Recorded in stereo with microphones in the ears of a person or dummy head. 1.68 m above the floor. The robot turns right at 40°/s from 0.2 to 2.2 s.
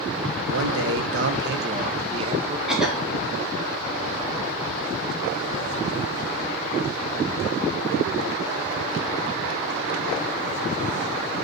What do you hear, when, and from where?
0.5 s a man speaking: 105° right, 1.2 m; by 2.6 s 40° right, 1.2 m
2.7 s a cough: 5° right (ahead or behind), 3 m